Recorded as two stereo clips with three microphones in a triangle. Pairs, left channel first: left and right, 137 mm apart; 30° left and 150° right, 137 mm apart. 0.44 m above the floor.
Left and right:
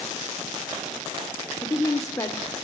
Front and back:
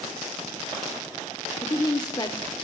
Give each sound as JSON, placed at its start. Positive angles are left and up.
{"t": 1.6, "sound": "a woman speaking", "azimuth_deg": 50, "distance_m": 1.0}